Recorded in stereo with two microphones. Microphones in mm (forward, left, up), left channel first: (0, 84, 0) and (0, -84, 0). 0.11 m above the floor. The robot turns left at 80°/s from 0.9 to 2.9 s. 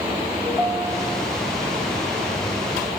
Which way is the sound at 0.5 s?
175° left.